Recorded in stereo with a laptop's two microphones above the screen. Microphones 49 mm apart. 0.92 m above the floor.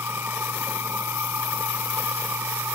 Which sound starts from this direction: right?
A machine running, at 0.0 s.